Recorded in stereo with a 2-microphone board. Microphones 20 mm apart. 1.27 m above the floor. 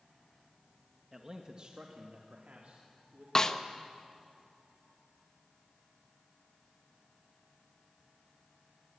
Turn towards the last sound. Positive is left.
turn(degrees=30)  # may be behind; listen again after turning